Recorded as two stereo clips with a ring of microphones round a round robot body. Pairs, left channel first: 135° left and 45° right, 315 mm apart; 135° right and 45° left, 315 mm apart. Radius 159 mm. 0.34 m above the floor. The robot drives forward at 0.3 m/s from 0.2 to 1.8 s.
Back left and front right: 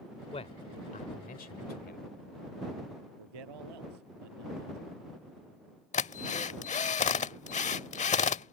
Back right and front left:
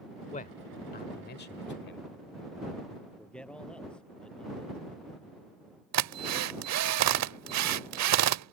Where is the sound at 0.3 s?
175° right.